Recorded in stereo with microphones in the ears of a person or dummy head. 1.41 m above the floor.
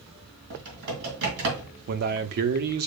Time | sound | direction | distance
0.5 | typing on a keyboard | 65° right (ahead or behind) | 2.5 m
1.9 | a man speaking | 50° right (ahead or behind) | 0.6 m